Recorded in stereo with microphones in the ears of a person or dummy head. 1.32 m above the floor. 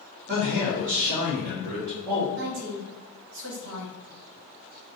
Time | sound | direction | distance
0.3 | a man speaking | 30° right (ahead or behind) | 1.9 m
2.4 | a woman speaking | 65° right (ahead or behind) | 0.8 m